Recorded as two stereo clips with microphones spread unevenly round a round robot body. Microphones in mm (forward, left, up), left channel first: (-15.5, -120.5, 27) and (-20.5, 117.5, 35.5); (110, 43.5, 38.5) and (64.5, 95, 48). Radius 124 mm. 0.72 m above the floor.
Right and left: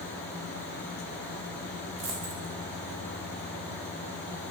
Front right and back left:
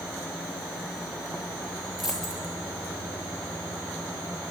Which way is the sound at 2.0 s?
45° left.